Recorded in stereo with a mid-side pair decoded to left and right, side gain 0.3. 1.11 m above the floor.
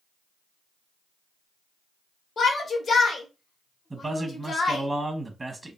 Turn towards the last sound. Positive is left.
turn(degrees=-30)